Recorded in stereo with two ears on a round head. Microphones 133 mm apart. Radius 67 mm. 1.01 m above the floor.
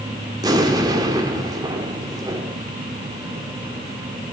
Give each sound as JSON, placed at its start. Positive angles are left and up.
{"t": 0.4, "sound": "an explosion", "side_deg": -25, "distance_m": 1.7}